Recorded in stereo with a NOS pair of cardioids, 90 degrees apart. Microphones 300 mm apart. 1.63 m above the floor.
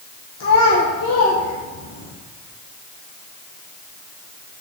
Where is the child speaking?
60° left, 1.3 m.